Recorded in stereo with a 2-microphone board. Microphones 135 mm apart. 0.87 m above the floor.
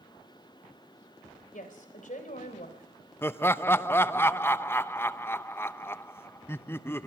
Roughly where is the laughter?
Centre.